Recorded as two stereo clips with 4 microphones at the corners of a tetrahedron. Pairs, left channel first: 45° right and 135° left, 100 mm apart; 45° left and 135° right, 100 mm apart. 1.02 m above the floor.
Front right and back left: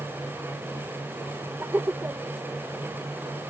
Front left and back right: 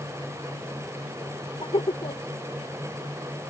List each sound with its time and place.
1.6 s laughter: 65° left